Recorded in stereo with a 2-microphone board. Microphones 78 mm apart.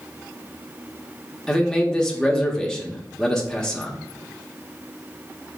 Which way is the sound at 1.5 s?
10° left (ahead or behind).